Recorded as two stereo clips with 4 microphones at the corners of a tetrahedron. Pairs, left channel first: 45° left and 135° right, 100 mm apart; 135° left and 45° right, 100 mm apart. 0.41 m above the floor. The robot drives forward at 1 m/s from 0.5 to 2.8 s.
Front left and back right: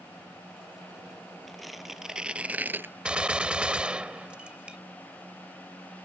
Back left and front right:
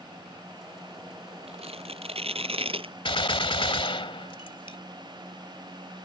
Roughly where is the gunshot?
Behind left.